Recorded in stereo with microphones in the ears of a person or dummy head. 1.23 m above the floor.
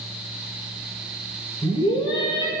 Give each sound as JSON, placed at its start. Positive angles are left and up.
{"t": 1.6, "sound": "a scream", "side_deg": 30, "distance_m": 3.0}